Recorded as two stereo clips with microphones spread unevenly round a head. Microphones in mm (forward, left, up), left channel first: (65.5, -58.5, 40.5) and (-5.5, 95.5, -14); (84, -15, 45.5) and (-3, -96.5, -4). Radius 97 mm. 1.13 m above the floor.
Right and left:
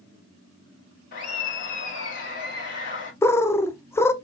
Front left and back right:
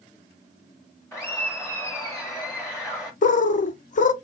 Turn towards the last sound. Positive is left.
turn(degrees=20)